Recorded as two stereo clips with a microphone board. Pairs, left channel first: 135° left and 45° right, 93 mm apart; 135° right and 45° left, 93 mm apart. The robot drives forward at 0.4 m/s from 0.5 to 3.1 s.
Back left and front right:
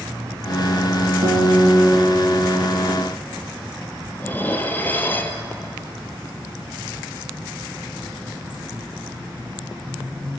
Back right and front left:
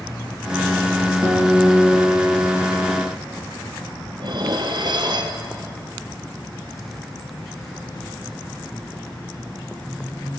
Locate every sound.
1.2 s a guitar: 10° right, 8.5 m
4.2 s dishes clattering: 70° left, 2 m